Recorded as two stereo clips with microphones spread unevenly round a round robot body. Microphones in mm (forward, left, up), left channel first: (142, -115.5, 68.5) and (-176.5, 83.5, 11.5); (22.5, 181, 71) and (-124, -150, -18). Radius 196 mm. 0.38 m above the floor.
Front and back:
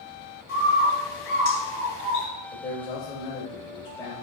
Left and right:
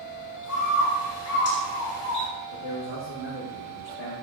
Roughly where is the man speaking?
Ahead left.